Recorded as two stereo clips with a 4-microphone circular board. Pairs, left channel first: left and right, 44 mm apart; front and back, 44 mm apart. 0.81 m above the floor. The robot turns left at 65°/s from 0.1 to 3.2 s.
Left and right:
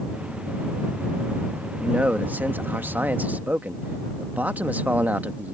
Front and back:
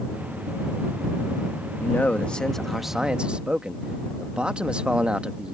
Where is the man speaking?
35° right; by 5.5 s 125° right.